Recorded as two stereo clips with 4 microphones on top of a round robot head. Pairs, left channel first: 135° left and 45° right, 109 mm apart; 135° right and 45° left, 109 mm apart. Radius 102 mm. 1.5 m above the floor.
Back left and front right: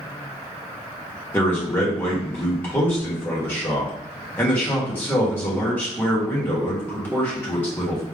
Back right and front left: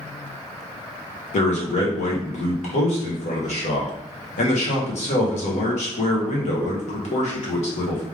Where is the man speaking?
150° right, 1.6 m.